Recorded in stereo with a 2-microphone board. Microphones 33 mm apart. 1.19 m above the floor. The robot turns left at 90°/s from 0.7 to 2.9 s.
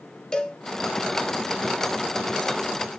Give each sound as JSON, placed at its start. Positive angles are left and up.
{"t": 0.3, "sound": "a cowbell", "side_deg": 25, "distance_m": 0.7}